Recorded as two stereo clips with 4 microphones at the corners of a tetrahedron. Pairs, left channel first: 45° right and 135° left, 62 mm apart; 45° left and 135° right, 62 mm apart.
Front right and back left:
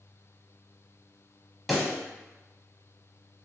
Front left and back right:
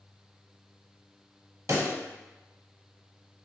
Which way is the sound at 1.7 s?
140° right.